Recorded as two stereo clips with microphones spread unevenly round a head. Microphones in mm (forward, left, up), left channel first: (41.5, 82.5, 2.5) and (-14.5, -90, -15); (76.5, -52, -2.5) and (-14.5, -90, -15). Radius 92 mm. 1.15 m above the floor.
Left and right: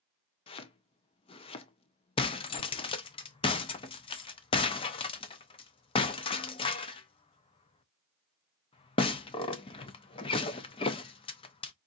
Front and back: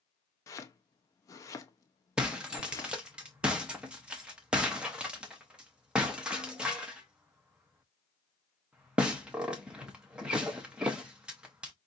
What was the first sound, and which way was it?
Chopping, 45° left.